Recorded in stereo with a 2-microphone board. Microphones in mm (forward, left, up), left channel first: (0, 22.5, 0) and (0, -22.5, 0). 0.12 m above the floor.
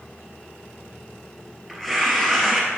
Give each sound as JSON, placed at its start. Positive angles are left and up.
{"t": 1.7, "sound": "tearing paper", "side_deg": -5, "distance_m": 2.5}